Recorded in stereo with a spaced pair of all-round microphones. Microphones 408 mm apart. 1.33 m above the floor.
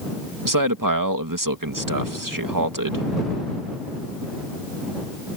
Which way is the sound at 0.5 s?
50° right (ahead or behind).